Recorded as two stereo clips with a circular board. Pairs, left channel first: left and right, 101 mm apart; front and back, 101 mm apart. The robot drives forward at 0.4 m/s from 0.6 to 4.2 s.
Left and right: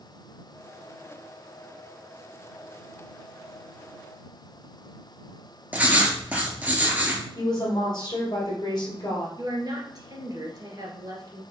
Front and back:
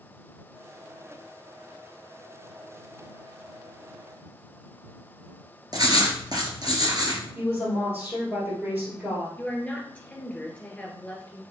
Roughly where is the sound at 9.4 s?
Right.